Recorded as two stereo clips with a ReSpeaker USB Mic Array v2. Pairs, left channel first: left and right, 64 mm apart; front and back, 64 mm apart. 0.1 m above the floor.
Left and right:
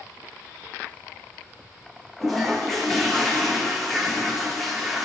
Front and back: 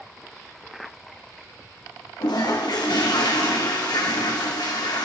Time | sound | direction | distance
2.2 | a toilet flushing | 5° left | 2 m